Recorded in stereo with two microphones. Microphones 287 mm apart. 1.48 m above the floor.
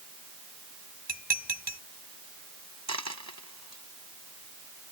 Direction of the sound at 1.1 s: 35° right (ahead or behind).